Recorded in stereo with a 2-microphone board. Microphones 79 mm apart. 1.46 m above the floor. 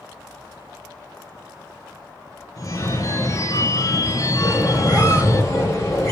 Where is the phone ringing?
40° left (ahead or behind), 0.8 m.